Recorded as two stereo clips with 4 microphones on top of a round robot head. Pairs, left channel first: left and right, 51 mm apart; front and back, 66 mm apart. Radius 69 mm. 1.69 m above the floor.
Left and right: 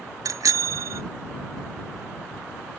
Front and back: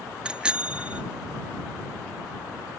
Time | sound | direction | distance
0.2 | a bicycle bell | 105° right | ?